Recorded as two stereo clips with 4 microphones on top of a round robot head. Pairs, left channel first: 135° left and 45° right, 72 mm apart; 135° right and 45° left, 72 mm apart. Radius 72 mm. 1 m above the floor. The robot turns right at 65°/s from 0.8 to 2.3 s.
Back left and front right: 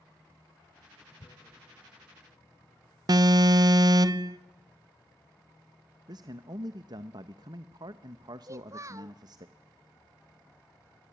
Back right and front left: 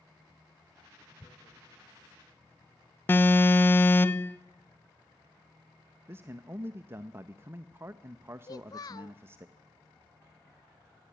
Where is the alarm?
75° right, 0.7 m.